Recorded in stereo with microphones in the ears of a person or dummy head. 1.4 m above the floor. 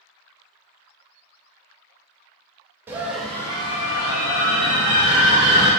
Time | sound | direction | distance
2.9 | a scream | 10° right (ahead or behind) | 0.7 m